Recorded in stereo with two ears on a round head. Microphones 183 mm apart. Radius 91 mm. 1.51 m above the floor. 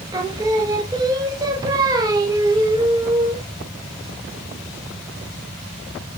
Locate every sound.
0.1 s singing: 20° right (ahead or behind), 0.5 m